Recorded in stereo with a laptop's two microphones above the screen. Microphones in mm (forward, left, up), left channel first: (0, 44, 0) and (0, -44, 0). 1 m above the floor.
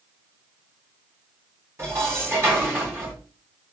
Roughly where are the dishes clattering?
Right.